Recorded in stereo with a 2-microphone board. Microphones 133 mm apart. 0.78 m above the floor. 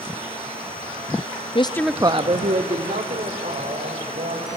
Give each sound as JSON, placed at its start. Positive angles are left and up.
{"t": 1.6, "sound": "a woman speaking", "side_deg": 40, "distance_m": 0.6}